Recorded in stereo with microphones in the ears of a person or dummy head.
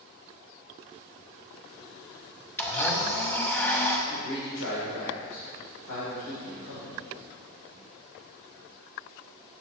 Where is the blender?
15° left (ahead or behind), 1.1 m.